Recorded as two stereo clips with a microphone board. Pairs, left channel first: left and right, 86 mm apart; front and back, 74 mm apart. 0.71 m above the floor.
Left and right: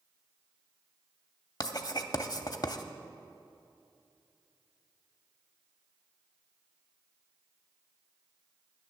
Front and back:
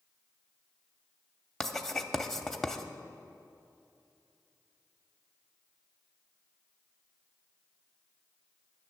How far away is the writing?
About 0.6 m.